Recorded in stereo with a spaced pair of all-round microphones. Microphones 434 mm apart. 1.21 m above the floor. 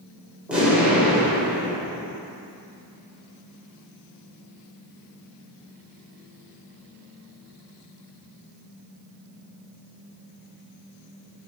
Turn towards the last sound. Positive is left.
turn(degrees=0)  # may be behind; listen again after turning